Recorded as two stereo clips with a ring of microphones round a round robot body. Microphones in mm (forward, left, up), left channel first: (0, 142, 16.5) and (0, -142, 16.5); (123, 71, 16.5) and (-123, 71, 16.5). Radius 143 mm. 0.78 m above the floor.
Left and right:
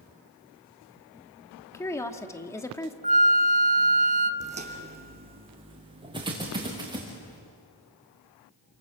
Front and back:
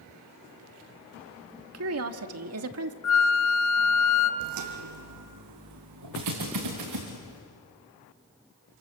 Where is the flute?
25° right, 1.4 m.